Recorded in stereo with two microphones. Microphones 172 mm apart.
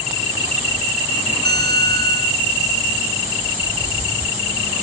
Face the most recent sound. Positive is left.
turn(degrees=-70)  # may be behind; listen again after turning